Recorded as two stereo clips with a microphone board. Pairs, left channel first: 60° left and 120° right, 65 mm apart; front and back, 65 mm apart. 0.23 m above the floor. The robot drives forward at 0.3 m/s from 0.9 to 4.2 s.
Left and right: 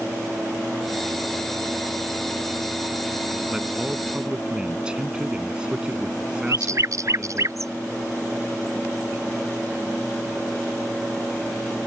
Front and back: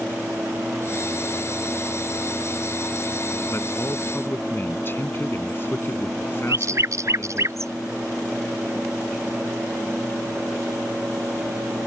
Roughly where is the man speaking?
Ahead right.